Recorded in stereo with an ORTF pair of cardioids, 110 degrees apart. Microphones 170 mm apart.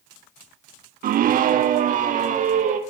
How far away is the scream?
About 1.5 m.